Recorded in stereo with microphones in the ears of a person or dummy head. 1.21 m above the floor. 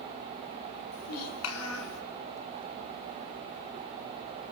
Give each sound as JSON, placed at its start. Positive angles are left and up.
{"t": 0.9, "sound": "a child speaking", "side_deg": 85, "distance_m": 4.5}